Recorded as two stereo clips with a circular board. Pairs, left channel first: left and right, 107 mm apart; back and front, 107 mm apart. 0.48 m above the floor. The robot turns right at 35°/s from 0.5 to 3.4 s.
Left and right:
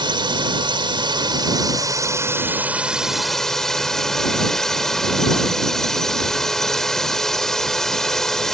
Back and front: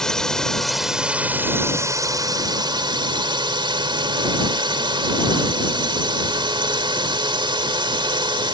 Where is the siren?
I don't hear a siren.